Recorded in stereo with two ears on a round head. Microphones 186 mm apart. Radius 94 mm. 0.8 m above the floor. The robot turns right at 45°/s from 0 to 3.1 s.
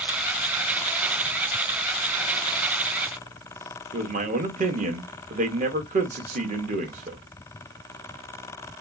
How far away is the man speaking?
About 1.1 m.